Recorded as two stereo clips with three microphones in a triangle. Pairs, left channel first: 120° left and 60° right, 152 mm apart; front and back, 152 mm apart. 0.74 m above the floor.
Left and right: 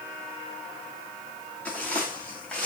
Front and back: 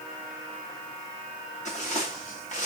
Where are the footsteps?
40° left, 8.5 m.